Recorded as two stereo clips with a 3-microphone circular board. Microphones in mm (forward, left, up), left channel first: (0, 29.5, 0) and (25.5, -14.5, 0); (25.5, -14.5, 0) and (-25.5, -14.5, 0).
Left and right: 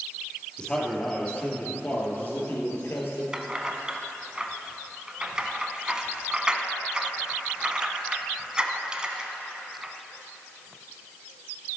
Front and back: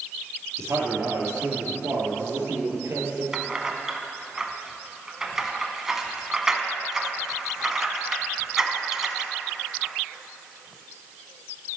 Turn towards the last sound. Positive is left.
turn(degrees=-110)